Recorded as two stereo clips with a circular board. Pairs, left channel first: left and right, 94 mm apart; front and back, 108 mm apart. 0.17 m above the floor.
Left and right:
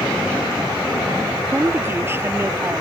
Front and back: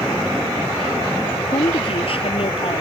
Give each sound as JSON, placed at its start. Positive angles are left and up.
{"t": 1.5, "sound": "a woman speaking", "azimuth_deg": -25}